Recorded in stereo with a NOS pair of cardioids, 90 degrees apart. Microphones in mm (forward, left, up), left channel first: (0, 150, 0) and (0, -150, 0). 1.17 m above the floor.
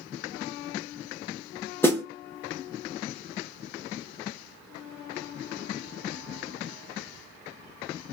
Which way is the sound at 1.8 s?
10° left.